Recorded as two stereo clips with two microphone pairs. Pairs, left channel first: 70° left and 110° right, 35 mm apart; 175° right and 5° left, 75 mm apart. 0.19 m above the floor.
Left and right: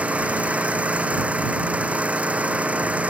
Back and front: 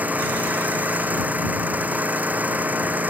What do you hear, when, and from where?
0.0 s an engine running: 60° right